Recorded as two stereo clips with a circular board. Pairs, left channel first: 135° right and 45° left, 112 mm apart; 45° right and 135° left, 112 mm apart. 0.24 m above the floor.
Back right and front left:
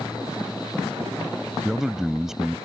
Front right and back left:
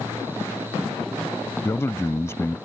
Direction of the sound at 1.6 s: 35° right.